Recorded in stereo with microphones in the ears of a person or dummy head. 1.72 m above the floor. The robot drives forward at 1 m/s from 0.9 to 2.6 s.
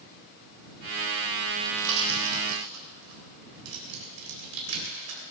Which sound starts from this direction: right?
A pop, at 1.6 s.